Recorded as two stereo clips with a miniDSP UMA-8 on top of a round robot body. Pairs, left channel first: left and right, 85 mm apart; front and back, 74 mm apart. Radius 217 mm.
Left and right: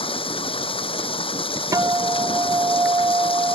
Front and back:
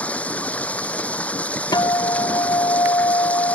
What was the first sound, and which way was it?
Running water, 75° left.